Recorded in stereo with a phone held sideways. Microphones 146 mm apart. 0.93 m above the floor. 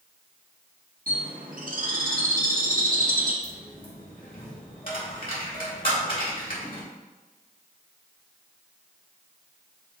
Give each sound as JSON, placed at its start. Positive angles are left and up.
{"t": 1.1, "sound": "a bird", "side_deg": -70, "distance_m": 0.8}
{"t": 3.4, "sound": "a dropped coin", "side_deg": 70, "distance_m": 1.4}